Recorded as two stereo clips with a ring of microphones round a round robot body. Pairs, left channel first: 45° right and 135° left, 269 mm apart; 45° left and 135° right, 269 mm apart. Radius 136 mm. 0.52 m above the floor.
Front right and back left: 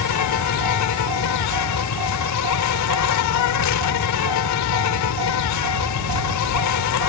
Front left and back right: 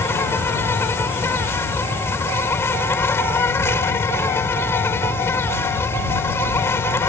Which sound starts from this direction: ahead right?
An insect, at 0.0 s.